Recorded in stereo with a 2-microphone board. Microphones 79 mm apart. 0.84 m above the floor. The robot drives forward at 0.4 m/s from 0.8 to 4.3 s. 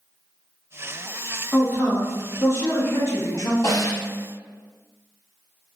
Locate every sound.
1.5 s a man speaking: 25° left (ahead or behind), 1.3 m; by 3.5 s 40° left (ahead or behind), 0.9 m
3.6 s a snare drum: 50° left (ahead or behind), 1.4 m